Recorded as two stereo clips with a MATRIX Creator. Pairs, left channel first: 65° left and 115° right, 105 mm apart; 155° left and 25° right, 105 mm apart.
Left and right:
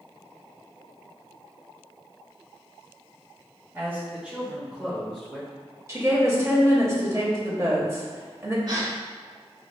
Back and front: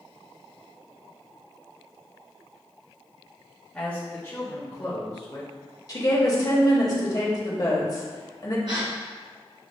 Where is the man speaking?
135° right, 1.1 m; by 5.5 s 150° left, 1.8 m.